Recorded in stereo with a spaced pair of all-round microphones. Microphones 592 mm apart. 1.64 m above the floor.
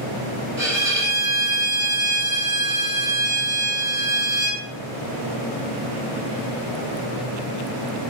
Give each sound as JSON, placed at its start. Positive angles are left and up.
{"t": 0.6, "sound": "a violin", "side_deg": -25, "distance_m": 2.5}